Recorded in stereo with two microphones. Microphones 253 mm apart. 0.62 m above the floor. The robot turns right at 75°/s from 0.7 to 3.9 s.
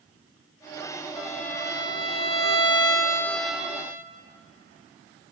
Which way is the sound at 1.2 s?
Centre (ahead or behind).